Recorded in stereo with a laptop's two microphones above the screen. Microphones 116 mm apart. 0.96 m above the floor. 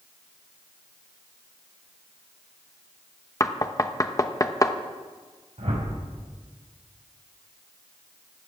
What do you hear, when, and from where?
3.4 s knocking: 30° left (ahead or behind), 0.9 m
5.6 s a whoosh: 80° right, 3.5 m